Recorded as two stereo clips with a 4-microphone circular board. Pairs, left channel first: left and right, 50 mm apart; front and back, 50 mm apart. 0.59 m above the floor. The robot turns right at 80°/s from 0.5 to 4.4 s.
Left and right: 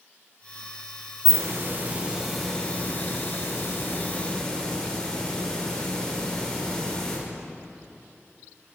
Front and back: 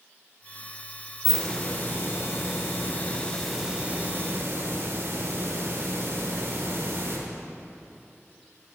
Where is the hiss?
90° right, 1.8 m; by 7.2 s 165° left, 1.8 m.